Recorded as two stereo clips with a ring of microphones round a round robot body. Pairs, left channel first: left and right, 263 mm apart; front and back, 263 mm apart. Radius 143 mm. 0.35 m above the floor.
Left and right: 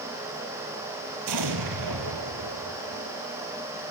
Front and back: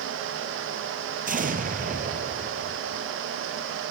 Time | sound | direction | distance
1.3 | an explosion | 120° right | 1.9 m